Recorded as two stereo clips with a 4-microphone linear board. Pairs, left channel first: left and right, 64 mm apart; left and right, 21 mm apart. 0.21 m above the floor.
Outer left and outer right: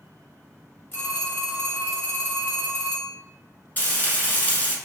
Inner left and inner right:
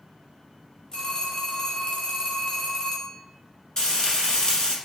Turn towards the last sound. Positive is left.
turn(degrees=30)  # may be behind; listen again after turning